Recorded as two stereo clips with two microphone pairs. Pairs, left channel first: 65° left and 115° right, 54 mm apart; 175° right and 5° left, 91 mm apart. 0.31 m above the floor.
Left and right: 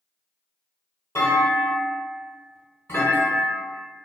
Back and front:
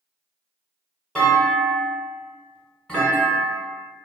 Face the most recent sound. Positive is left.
turn(degrees=100)